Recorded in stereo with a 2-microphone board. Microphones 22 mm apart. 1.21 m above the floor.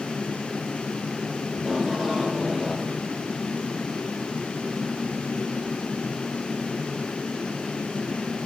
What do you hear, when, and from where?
1.5 s tape being pulled: 25° right (ahead or behind), 2.5 m